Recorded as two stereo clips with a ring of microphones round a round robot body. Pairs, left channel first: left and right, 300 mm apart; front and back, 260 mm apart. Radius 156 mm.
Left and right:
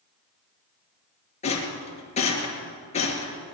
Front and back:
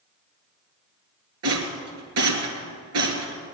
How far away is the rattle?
About 2.5 m.